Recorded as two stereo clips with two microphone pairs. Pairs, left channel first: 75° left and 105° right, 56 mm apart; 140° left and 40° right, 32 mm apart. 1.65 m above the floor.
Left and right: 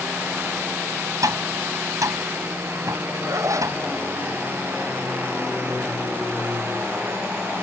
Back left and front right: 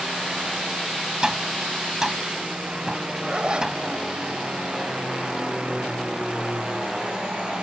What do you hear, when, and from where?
1.2 s tapping: 105° right
3.3 s a zipper: 95° right